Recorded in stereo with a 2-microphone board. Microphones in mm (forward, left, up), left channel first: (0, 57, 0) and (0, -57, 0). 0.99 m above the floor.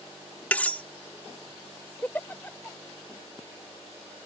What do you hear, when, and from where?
0.5 s cutlery clinking: 10° left (ahead or behind)
2.0 s a giggle: 15° left (ahead or behind)